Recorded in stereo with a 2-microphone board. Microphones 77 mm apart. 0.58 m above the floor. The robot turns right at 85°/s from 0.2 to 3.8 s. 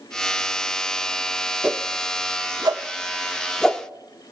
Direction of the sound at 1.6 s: 15° right (ahead or behind).